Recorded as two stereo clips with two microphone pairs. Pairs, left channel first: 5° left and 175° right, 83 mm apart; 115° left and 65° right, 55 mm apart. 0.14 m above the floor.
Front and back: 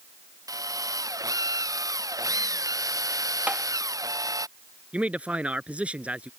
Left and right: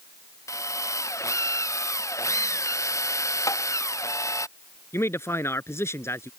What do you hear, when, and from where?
0.5 s a drill: 140° left
3.5 s tapping: 110° left
4.9 s a man speaking: 115° left